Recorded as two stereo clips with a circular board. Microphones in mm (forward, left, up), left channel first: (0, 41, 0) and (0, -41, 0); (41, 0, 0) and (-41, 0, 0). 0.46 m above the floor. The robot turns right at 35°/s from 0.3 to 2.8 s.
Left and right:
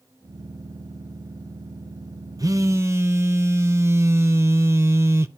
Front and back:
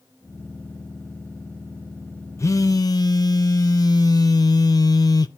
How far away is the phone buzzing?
About 0.6 m.